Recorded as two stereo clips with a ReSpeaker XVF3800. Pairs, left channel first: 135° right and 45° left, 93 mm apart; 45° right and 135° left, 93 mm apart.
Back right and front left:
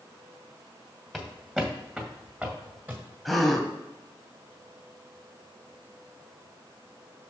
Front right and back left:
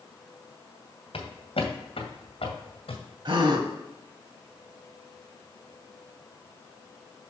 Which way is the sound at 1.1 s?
45° right.